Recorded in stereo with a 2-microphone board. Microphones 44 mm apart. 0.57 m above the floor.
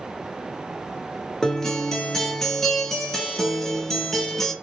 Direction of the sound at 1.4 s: 10° left (ahead or behind).